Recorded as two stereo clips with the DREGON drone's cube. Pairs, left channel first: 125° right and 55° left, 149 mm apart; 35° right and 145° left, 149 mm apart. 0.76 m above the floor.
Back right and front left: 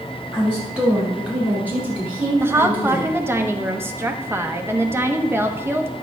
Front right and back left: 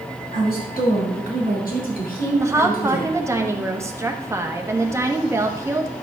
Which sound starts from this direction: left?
A woman speaking, at 2.4 s.